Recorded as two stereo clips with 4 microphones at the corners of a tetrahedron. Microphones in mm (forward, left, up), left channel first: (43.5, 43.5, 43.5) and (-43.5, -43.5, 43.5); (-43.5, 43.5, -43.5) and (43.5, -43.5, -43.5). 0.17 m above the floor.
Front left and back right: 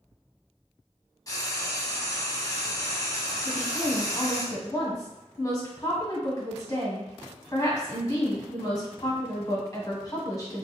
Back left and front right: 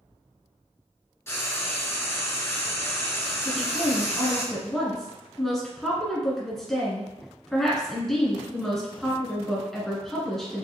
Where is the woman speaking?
50° left, 1.5 m.